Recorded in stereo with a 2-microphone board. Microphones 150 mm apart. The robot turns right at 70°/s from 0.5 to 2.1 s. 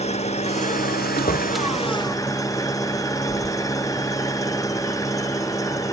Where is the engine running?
45° left; by 5.9 s 160° left.